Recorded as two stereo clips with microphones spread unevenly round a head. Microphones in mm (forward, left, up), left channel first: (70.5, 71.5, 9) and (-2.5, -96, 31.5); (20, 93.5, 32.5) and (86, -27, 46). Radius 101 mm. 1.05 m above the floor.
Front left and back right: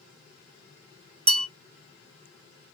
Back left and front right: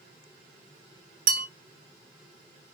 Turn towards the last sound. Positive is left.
turn(degrees=-60)